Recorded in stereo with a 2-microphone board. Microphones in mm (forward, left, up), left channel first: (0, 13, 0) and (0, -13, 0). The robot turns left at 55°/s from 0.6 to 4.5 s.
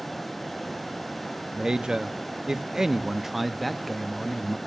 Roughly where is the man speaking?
Right.